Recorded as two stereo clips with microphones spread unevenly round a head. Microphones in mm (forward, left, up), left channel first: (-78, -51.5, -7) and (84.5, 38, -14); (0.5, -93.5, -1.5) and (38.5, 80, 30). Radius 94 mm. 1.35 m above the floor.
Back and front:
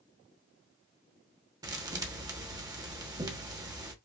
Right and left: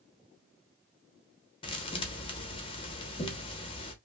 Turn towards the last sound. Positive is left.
turn(degrees=-40)